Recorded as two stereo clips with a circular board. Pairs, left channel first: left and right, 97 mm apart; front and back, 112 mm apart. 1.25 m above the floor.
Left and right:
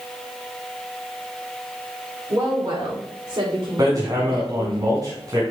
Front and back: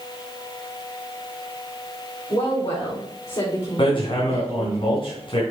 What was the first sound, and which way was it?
A woman speaking, 35° right.